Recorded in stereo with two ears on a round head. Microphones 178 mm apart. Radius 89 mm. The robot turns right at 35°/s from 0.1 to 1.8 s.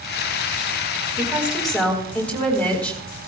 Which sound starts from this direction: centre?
A woman speaking, at 1.2 s.